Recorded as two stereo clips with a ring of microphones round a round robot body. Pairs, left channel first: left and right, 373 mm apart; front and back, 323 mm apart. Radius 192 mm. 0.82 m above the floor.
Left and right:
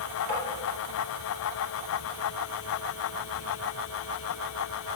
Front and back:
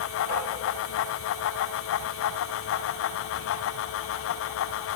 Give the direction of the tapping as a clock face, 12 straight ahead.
2 o'clock.